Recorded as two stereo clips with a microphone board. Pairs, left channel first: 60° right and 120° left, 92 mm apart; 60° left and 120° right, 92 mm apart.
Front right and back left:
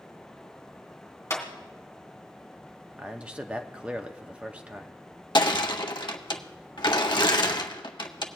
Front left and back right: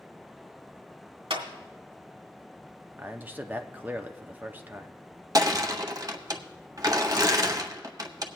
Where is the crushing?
80° right, 0.7 m.